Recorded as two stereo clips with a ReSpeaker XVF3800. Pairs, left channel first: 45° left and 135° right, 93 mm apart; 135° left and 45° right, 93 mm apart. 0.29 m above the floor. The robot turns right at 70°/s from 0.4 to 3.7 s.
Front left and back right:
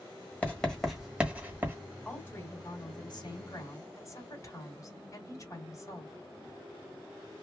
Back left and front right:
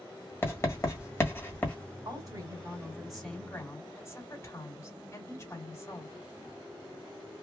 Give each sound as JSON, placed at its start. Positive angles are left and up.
{"t": 0.4, "sound": "writing", "azimuth_deg": 100, "distance_m": 1.4}
{"t": 2.0, "sound": "a woman speaking", "azimuth_deg": -30, "distance_m": 2.0}